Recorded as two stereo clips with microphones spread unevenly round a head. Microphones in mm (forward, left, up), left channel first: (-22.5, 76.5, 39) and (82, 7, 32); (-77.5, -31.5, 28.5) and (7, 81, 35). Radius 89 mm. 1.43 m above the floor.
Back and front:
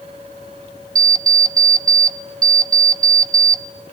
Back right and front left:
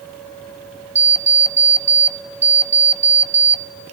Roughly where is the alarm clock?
Ahead.